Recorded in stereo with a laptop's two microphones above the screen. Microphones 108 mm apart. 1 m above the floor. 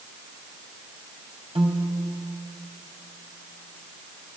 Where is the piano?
65° right (ahead or behind), 3 m.